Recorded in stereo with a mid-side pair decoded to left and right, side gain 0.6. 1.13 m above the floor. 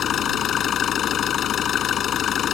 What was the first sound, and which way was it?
An engine running, 50° left.